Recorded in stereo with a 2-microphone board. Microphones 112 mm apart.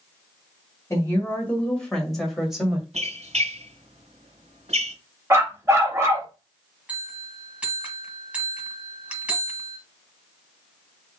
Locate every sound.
0.9 s a woman speaking: 25° left (ahead or behind), 1.7 m; by 2.8 s 5° right (ahead or behind), 2 m
2.9 s a squeak: 75° right (ahead or behind), 1.8 m
5.3 s a dog barking: 25° right (ahead or behind), 0.9 m
6.9 s a bell: 10° right (ahead or behind), 1.1 m